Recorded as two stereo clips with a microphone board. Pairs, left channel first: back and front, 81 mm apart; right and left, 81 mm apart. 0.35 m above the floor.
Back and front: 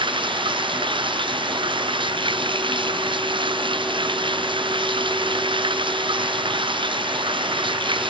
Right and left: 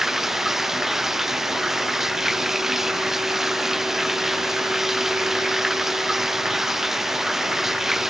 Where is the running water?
5° left.